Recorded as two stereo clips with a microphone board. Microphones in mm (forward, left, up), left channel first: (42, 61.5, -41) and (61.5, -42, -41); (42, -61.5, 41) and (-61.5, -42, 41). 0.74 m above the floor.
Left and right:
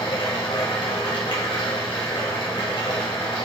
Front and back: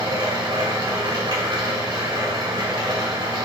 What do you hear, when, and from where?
0.0 s running water: 130° left, 1.9 m